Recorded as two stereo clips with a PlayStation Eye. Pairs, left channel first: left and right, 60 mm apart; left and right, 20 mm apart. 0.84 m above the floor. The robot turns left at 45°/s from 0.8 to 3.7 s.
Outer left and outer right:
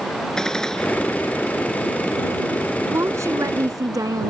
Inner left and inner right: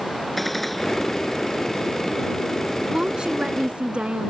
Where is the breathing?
No breathing in this recording.